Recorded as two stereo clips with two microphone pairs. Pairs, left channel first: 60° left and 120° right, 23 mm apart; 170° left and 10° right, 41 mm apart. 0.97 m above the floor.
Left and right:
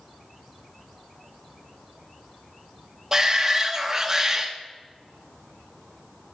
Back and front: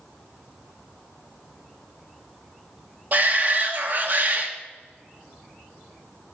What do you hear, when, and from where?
3.1 s a shout: 55° right, 1.3 m